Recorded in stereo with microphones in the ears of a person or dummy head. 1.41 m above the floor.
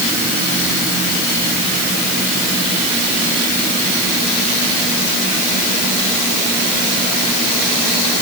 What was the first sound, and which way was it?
Only background noise.